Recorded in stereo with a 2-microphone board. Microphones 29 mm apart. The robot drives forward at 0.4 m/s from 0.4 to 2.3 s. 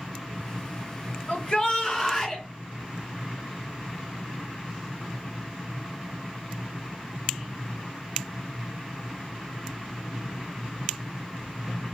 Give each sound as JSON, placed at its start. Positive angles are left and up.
{"t": 1.3, "sound": "a shout", "side_deg": 25, "distance_m": 1.0}